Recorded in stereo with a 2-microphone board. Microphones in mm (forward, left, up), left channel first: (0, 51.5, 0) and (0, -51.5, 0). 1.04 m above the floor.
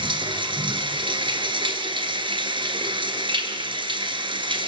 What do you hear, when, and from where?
0.0 s running water: 55° right (ahead or behind), 1.7 m